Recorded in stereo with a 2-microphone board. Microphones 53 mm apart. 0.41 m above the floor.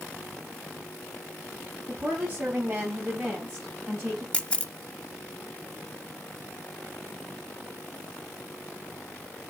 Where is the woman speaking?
30° right (ahead or behind), 3 m; by 4.2 s centre (ahead or behind), 3 m.